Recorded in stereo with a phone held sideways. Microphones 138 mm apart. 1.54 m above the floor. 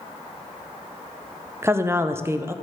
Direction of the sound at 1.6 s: 20° right (ahead or behind).